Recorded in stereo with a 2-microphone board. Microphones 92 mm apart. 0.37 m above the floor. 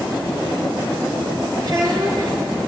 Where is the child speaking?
45° right (ahead or behind), 5.5 m.